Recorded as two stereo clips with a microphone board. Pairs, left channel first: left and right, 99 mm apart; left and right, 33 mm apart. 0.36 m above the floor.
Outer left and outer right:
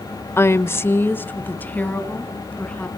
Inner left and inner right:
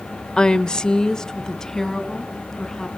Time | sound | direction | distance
0.4 | a woman speaking | 25° left (ahead or behind) | 0.9 m